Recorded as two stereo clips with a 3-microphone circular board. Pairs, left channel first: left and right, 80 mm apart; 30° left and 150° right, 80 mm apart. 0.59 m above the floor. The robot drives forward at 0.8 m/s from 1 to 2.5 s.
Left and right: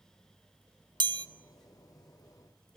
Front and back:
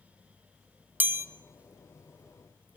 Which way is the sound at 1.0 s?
85° right.